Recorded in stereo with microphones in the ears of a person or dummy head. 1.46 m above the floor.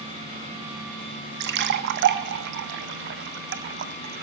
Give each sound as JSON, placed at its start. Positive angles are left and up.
{"t": 1.4, "sound": "a splash", "side_deg": -55, "distance_m": 0.6}